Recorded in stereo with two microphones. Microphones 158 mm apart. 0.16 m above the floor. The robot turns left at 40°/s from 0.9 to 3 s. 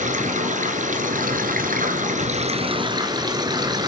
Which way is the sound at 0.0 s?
65° right.